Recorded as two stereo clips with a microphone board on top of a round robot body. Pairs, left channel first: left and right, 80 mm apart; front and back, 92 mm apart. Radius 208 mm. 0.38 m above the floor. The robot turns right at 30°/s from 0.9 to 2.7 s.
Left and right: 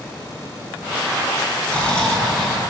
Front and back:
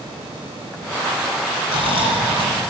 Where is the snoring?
160° left, 2.5 m; by 2.6 s 175° right, 2.5 m.